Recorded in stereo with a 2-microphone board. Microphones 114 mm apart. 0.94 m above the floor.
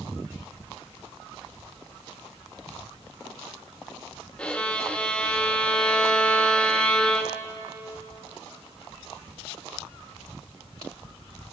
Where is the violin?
10° left (ahead or behind), 1.5 m.